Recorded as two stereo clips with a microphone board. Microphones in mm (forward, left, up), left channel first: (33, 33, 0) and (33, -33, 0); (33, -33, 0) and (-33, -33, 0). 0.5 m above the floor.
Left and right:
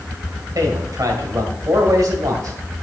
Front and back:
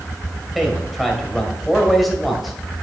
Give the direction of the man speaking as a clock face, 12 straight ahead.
3 o'clock.